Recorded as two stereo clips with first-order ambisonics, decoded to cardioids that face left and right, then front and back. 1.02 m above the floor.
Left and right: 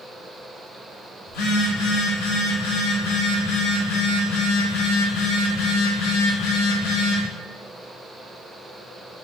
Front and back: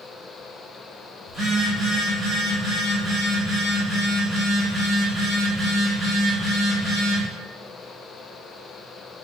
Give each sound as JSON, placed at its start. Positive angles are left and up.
{"t": 1.3, "sound": "a phone buzzing", "azimuth_deg": 90, "distance_m": 1.4}